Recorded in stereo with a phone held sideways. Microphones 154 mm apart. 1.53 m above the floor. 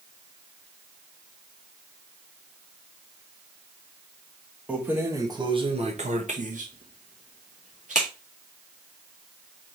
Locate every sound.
4.7 s keys jangling: 10° right (ahead or behind), 1.2 m; by 8.1 s 50° right (ahead or behind), 1.9 m